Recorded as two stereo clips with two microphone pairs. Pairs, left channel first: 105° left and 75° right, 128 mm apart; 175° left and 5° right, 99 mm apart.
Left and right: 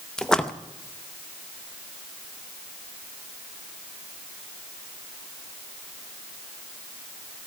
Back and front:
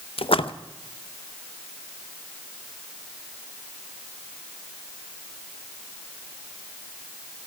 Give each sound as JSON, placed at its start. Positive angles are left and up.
{"t": 0.2, "sound": "a splash", "azimuth_deg": -170, "distance_m": 0.7}